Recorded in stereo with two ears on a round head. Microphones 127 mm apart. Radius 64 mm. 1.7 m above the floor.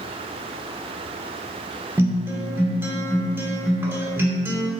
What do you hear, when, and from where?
2.0 s a guitar: 15° right (ahead or behind), 1.5 m